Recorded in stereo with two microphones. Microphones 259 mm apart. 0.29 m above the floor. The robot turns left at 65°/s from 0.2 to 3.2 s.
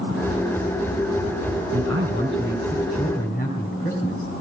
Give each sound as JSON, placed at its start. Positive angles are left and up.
{"t": 1.7, "sound": "a man speaking", "azimuth_deg": -115, "distance_m": 4.0}